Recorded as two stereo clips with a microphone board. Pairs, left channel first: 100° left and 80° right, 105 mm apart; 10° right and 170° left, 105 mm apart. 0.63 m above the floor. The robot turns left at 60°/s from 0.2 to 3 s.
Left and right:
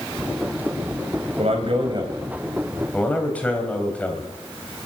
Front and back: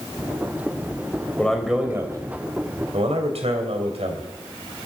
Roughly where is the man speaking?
Right.